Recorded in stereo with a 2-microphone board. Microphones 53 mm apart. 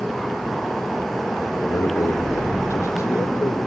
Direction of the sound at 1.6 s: 75° left (ahead or behind).